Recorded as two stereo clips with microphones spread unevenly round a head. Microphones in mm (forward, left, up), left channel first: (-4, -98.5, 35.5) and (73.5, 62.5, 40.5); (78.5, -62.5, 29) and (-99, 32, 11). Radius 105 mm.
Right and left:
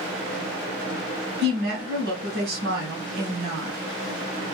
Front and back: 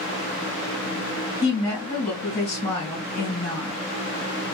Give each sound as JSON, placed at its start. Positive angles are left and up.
{"t": 1.4, "sound": "a woman speaking", "azimuth_deg": 60, "distance_m": 1.7}